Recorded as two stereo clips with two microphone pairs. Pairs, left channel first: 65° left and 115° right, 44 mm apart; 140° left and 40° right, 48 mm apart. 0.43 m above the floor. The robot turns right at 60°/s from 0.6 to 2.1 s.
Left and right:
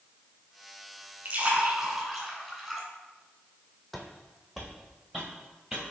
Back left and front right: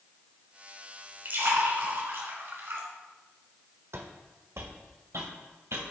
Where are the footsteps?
25° right, 1.0 m; by 5.9 s 40° right, 2.5 m.